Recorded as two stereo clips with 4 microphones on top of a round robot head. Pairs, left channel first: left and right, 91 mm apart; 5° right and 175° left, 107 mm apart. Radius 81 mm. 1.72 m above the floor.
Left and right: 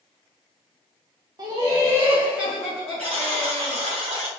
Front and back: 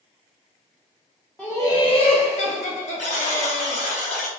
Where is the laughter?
85° right, 0.5 m; by 3.8 s 10° left, 1.4 m.